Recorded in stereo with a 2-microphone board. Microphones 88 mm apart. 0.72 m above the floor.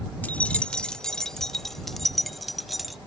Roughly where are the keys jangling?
Centre.